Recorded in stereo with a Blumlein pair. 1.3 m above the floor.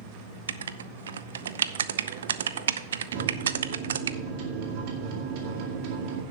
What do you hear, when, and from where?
0.5 s writing: 65° right, 0.5 m
3.1 s a microwave: 45° right, 2 m